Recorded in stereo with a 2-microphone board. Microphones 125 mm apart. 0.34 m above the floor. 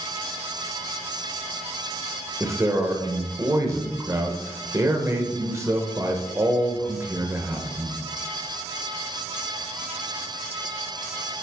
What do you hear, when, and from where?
2.4 s a man speaking: 25° right (ahead or behind), 0.8 m